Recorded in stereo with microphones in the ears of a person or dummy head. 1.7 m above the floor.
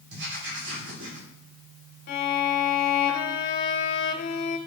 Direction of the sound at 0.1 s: 75° right (ahead or behind).